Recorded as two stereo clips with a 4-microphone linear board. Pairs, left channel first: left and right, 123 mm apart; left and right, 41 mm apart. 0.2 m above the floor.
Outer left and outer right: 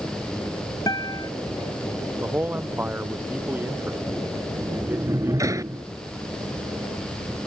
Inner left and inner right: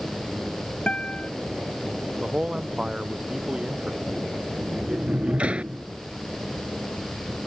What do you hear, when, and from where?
0.9 s a guitar: 30° left (ahead or behind)
2.2 s a man speaking: 15° right (ahead or behind)
4.5 s a sliding door: 25° right (ahead or behind)